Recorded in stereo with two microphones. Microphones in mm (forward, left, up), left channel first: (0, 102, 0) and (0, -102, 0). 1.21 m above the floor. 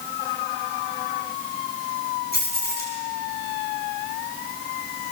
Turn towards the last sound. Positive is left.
turn(degrees=55)  # may be behind; listen again after turning